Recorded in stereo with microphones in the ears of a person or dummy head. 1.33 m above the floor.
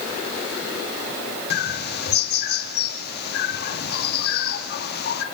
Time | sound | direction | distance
1.5 | a bird | 55° left (ahead or behind) | 2.0 m